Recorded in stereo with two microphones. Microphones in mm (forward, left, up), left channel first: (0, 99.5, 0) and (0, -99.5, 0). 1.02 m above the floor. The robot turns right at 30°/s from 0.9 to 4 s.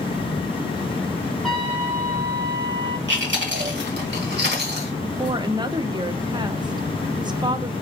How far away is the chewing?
About 1.4 m.